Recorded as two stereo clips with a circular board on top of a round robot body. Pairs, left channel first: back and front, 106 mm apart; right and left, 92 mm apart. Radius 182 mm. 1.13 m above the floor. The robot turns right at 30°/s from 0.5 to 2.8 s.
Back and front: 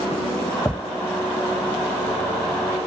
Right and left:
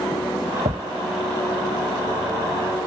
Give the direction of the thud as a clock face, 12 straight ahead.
9 o'clock.